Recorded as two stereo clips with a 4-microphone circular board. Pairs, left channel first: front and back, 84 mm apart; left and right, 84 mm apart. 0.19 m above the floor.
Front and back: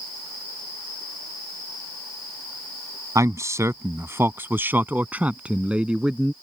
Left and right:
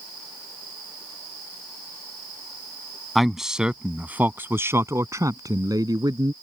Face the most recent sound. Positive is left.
turn(degrees=-100)